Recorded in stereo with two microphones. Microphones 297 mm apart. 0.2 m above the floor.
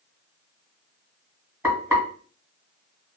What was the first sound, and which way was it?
Frying, 10° right (ahead or behind).